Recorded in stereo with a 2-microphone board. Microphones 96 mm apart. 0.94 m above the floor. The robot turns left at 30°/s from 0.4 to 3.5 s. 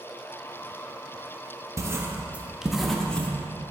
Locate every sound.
1.8 s writing: 30° right (ahead or behind), 0.6 m; by 3.3 s 15° left (ahead or behind), 0.6 m